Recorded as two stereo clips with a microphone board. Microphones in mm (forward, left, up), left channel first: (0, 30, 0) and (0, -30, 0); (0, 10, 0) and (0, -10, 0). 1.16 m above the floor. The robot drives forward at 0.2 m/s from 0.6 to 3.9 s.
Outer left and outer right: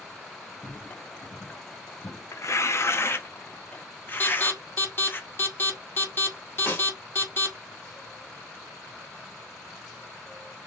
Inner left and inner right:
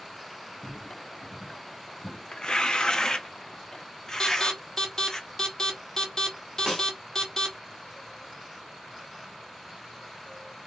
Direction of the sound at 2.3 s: 50° left (ahead or behind).